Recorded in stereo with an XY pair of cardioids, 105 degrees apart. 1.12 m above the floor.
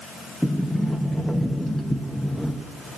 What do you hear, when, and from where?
0.4 s a sliding door: 5° left, 0.8 m